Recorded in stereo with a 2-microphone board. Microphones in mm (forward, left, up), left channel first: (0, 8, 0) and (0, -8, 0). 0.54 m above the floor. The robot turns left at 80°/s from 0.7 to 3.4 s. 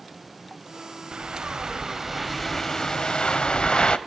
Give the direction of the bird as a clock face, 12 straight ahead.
3 o'clock.